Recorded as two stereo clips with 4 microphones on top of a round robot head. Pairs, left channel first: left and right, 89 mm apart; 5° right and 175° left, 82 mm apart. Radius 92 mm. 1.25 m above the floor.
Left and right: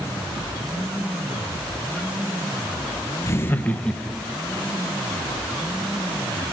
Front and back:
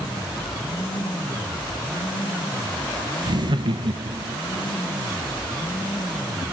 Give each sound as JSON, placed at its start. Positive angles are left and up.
{"t": 3.2, "sound": "laughter", "azimuth_deg": 145, "distance_m": 1.2}